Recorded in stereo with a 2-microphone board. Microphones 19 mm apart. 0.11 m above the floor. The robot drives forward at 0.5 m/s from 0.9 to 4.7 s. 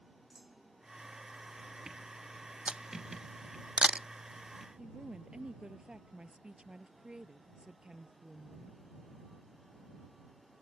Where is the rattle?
No rattle in this recording.